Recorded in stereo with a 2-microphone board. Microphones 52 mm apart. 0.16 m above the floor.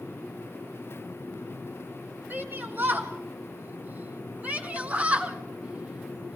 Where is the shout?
45° right (ahead or behind), 1.9 m; by 6.4 s 15° right (ahead or behind), 2.5 m.